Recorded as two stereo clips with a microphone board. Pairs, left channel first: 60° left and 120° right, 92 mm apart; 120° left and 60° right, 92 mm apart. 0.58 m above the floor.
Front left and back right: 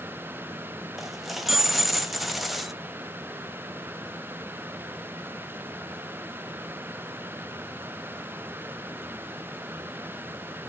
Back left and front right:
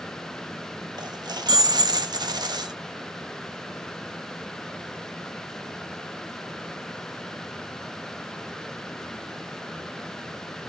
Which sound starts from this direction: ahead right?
A dropped coin, at 1.0 s.